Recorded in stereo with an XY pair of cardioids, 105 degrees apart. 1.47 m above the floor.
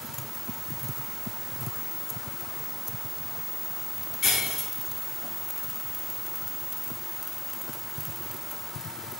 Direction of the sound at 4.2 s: 45° left.